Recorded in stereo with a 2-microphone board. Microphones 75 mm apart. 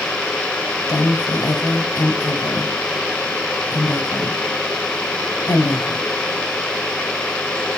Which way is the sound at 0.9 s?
50° left (ahead or behind).